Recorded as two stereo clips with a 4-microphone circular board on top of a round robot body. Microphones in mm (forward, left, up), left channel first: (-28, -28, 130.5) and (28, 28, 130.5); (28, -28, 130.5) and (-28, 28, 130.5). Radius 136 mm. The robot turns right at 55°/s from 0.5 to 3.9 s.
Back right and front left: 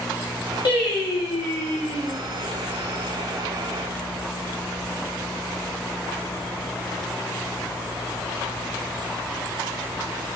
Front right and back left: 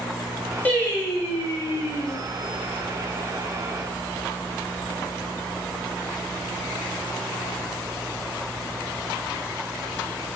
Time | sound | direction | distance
0.7 | singing | 120° right | 2.5 m